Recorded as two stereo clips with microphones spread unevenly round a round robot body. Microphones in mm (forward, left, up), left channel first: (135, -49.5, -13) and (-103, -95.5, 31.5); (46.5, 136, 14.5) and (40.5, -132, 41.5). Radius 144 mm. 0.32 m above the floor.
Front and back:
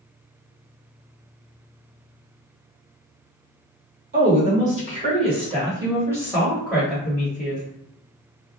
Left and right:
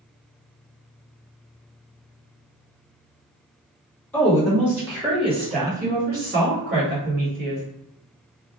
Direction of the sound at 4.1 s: 155° left.